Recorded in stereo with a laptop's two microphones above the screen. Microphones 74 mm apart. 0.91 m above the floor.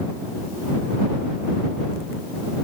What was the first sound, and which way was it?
Only background noise.